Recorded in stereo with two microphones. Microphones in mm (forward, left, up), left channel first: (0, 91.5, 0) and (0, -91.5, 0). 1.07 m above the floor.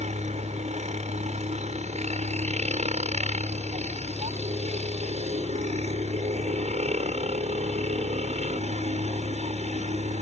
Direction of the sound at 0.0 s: 40° right (ahead or behind).